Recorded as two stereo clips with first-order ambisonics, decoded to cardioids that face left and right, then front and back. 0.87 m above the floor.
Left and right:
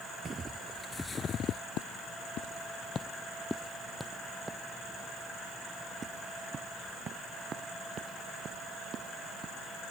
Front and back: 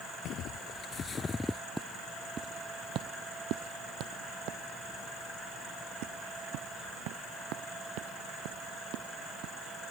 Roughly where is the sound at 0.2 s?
Ahead right.